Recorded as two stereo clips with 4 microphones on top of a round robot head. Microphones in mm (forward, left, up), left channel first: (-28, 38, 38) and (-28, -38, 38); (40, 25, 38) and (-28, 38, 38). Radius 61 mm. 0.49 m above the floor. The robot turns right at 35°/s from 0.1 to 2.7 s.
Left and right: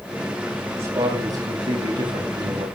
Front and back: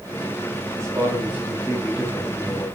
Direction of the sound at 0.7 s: 145° right.